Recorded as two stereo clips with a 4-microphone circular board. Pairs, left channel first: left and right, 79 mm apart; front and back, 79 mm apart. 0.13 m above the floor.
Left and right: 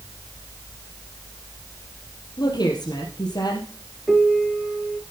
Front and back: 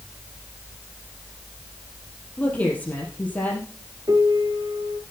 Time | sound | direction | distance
2.4 | a woman speaking | 70° left | 3.5 m
4.1 | a piano | straight behind | 1.9 m